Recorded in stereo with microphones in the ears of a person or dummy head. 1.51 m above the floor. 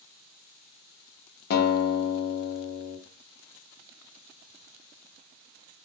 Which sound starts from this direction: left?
A guitar, at 1.5 s.